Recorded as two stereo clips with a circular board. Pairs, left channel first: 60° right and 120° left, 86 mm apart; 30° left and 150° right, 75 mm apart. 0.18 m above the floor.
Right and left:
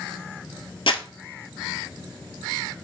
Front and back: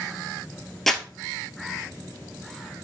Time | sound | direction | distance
0.9 | crumpling | 55° right | 0.9 m